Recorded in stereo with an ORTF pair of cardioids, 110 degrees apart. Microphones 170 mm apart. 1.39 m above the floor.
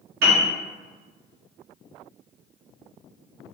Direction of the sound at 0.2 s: 60° right.